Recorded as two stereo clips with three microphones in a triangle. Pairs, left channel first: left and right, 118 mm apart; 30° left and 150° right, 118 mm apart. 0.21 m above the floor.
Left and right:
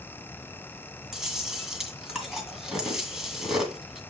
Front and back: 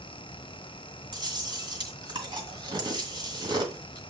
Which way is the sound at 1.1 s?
175° right.